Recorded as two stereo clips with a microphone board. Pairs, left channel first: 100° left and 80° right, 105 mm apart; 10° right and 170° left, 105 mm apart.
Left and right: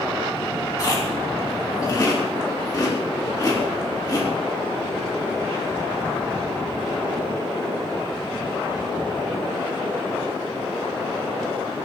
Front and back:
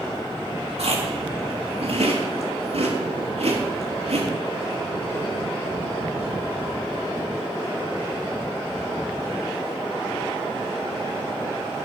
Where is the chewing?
155° left, 4 m.